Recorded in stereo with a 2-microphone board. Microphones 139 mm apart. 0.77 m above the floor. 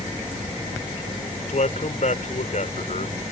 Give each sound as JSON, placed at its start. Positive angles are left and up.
{"t": 1.5, "sound": "a man speaking", "side_deg": 60}